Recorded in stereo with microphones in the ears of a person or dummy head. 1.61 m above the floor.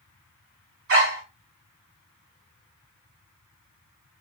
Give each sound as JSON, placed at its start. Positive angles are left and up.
{"t": 0.9, "sound": "a dog barking", "side_deg": -55, "distance_m": 3.5}